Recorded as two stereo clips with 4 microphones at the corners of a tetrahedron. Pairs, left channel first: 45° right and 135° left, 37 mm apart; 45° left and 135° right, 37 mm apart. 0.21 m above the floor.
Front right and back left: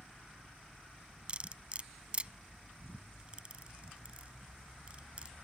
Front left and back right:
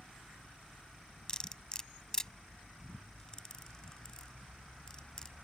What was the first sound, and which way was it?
Cutlery clinking, 100° left.